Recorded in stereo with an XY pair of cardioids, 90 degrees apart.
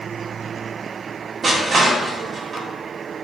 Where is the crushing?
45° right, 1.0 m.